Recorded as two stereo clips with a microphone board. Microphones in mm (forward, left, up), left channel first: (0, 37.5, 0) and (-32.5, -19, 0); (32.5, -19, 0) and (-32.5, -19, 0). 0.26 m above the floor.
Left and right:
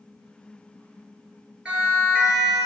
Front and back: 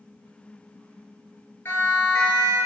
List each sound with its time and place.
1.6 s a siren: 50° right, 7 m